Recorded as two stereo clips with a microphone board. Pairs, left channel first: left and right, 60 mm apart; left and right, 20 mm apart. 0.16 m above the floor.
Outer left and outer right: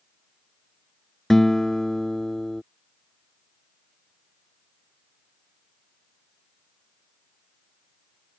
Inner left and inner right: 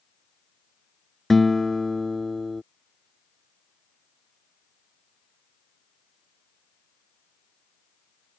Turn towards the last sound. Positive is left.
turn(degrees=10)  # may be behind; listen again after turning